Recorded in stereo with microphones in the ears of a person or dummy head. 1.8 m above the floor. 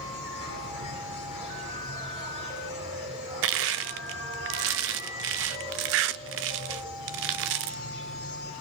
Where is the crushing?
65° right (ahead or behind), 0.7 m.